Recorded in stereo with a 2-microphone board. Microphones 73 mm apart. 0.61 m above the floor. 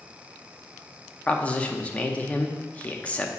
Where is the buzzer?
No buzzer in this recording.